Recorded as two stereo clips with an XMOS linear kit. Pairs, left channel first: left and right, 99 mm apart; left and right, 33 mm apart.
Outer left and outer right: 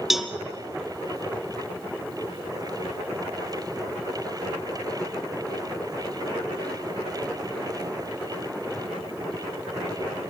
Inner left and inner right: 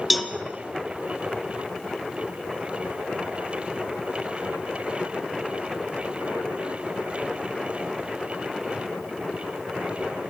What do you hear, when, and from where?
0.1 s a cowbell: 5° right (ahead or behind), 1.0 m